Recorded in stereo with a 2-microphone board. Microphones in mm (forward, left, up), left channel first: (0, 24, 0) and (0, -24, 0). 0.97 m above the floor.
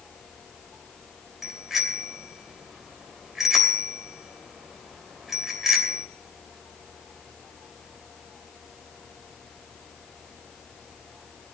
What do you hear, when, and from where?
1.4 s a bicycle bell: 5° right (ahead or behind), 3 m